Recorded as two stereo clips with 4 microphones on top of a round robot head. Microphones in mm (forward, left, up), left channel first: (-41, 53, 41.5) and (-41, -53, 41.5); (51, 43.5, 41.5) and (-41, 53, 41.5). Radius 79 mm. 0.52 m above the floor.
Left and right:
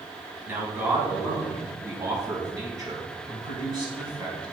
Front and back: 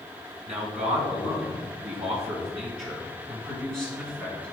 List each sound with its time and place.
0.5 s a man speaking: 160° right, 5 m; by 4.5 s 130° right, 5 m